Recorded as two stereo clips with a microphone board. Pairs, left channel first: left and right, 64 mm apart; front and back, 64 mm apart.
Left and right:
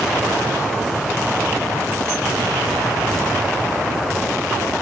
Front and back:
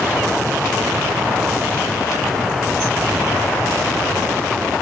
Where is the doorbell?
No doorbell in this recording.